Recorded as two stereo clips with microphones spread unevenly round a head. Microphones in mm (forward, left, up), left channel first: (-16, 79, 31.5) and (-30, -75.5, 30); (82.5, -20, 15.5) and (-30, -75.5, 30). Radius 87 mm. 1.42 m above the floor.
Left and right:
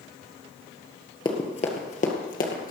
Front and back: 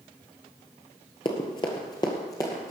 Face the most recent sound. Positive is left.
turn(degrees=100)